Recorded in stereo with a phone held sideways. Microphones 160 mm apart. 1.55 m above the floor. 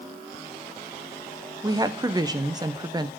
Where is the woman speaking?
25° right (ahead or behind), 0.7 m.